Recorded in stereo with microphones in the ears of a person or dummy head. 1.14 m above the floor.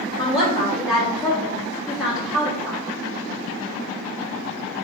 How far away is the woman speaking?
About 2 m.